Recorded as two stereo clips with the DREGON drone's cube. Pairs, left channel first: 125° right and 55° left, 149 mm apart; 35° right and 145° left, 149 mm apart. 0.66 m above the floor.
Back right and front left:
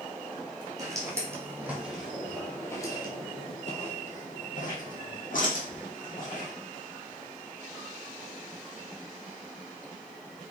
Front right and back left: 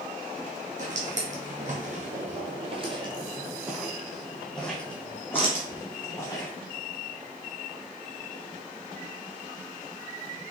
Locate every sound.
0.8 s footsteps: 120° left, 1.4 m; by 6.5 s 100° right, 2.0 m